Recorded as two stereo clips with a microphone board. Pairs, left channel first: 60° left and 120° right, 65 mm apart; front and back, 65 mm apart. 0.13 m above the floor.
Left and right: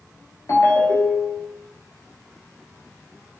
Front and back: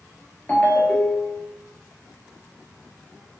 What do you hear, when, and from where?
0.5 s a ringtone: 65° left, 1.1 m